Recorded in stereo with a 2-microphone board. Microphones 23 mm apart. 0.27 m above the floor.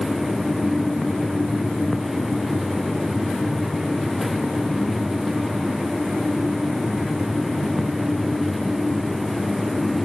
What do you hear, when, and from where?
Only background noise.